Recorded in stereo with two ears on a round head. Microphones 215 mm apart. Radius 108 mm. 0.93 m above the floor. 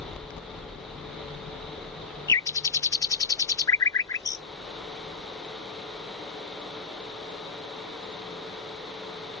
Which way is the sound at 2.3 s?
15° left (ahead or behind).